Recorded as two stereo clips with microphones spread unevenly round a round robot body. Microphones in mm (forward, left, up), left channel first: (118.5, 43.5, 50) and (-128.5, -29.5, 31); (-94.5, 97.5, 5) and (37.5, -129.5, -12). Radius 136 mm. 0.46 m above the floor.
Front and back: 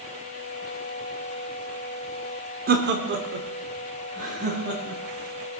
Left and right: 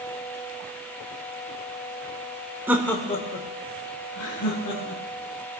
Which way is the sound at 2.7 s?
135° right.